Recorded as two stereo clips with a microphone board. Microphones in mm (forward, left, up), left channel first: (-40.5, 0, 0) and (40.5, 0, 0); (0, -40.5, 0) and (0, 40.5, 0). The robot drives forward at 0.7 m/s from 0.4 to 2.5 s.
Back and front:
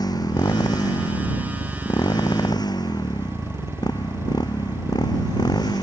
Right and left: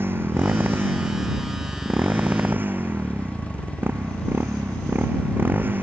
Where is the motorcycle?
150° left; by 5.8 s 155° left.